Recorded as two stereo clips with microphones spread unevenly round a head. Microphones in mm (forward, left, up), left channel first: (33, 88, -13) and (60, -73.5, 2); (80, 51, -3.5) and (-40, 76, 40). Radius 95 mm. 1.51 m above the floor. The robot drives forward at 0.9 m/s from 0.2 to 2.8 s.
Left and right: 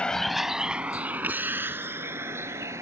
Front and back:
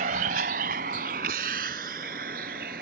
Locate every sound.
0.0 s a vehicle: 175° right; by 2.8 s 155° right